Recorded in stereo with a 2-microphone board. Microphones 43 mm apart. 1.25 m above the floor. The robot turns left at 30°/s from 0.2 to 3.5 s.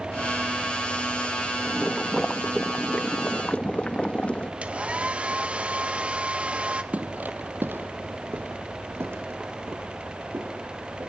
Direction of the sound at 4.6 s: 30° right (ahead or behind).